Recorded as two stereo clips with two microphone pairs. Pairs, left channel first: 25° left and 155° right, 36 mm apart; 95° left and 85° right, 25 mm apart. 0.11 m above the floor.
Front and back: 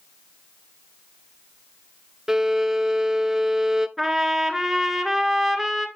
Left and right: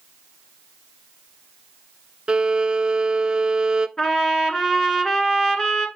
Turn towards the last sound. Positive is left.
turn(degrees=130)